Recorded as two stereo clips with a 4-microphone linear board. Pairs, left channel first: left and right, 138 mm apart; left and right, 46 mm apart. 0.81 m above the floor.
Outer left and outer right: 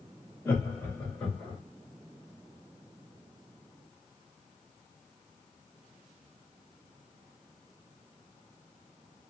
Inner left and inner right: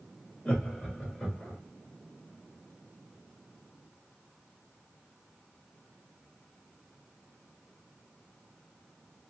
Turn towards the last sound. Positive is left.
turn(degrees=5)  # may be behind; listen again after turning